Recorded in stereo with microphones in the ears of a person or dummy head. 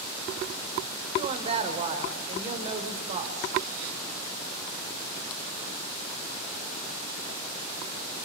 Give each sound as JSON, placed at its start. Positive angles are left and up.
{"t": 1.1, "sound": "a woman speaking", "side_deg": -35, "distance_m": 4.0}